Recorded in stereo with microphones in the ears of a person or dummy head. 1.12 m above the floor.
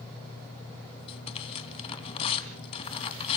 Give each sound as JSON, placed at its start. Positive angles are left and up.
{"t": 1.1, "sound": "tearing paper", "side_deg": 35, "distance_m": 3.0}